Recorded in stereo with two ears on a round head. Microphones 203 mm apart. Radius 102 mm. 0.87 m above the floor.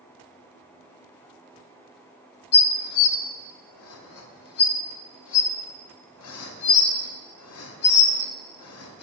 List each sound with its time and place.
2.5 s dishes clattering: 75° left (ahead or behind), 0.6 m